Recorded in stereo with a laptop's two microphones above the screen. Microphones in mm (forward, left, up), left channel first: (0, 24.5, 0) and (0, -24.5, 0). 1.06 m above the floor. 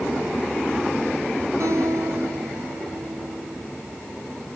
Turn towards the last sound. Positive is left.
turn(degrees=-75)  # may be behind; listen again after turning